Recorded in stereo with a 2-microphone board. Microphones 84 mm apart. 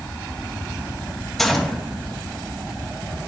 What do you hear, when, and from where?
1.4 s a gunshot: centre (ahead or behind), 1.3 m